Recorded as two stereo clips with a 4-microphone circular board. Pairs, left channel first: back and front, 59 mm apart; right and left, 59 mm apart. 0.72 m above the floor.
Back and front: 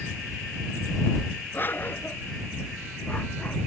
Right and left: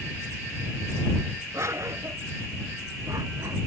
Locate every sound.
1.5 s a dog barking: 125° left; by 3.6 s 115° left